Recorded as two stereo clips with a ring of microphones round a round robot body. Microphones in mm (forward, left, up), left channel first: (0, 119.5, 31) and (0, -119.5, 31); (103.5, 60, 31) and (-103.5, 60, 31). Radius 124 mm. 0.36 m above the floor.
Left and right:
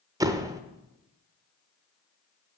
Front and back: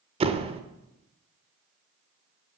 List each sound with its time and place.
0.2 s a door slam: 155° right, 0.8 m